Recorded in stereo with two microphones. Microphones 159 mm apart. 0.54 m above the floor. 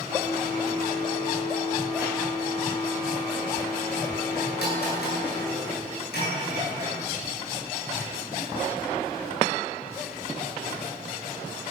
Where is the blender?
85° left, 10 m.